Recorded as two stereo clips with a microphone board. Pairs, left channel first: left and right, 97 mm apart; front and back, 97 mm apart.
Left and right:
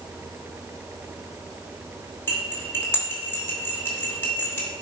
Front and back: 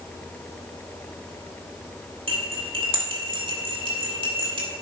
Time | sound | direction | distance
2.3 | cutlery clinking | 155° left | 2.5 m